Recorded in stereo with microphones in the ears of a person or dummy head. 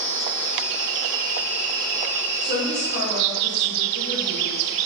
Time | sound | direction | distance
2.4 | a woman speaking | 50° left (ahead or behind) | 2 m